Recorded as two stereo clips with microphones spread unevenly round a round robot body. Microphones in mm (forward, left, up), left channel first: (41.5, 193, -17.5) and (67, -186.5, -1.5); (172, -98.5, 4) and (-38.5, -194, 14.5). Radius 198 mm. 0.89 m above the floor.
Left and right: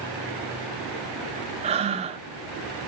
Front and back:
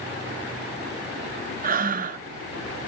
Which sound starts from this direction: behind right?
Breathing, at 1.6 s.